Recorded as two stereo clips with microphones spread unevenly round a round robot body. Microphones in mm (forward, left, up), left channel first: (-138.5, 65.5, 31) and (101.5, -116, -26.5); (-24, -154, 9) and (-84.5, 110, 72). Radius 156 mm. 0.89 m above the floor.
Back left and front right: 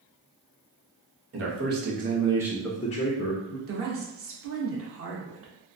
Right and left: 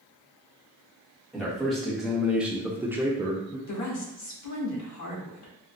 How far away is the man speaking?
About 1.0 m.